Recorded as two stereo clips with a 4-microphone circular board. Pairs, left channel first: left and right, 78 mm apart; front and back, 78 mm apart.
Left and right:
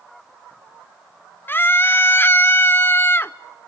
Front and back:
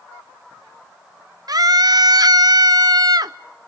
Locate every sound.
1.5 s a scream: 150° left, 0.7 m